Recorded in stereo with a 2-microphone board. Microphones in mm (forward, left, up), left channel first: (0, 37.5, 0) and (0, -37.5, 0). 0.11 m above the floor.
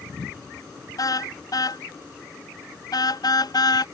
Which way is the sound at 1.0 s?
55° left (ahead or behind).